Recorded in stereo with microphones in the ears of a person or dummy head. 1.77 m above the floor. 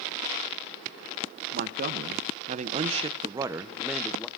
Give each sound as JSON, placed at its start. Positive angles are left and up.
{"t": 1.5, "sound": "a man speaking", "side_deg": -60, "distance_m": 1.6}